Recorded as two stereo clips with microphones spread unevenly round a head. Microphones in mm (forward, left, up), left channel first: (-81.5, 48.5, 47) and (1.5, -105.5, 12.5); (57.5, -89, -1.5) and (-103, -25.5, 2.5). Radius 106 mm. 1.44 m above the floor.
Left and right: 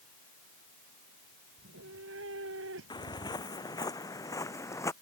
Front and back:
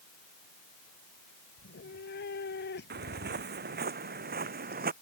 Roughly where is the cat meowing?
Ahead right.